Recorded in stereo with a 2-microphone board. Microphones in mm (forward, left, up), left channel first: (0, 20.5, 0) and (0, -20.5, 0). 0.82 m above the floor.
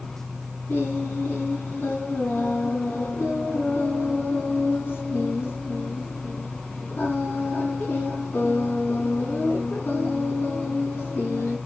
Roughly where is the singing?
Left.